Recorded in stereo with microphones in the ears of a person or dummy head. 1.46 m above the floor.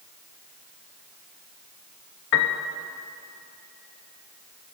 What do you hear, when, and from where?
2.3 s a piano: 60° left (ahead or behind), 0.8 m